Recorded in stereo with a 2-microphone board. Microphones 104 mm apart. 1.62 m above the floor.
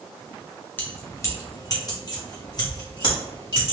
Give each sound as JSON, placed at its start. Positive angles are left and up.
{"t": 0.8, "sound": "keys jangling", "side_deg": 20, "distance_m": 0.8}